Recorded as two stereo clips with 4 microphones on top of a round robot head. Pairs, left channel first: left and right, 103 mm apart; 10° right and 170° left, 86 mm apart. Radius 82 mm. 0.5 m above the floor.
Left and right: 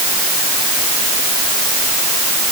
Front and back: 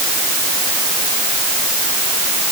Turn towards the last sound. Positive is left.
No sound to turn to.